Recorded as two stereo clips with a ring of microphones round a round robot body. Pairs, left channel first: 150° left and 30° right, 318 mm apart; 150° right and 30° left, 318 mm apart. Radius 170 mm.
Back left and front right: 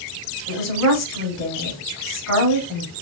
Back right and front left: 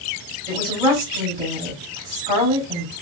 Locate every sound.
0.5 s a woman speaking: 95° left, 4 m